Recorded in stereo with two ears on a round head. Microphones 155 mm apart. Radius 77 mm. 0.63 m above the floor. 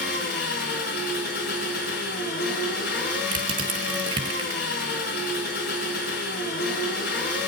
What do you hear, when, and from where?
0.0 s an engine running: 50° left (ahead or behind), 4.5 m
3.3 s crushing: 30° right (ahead or behind), 1.7 m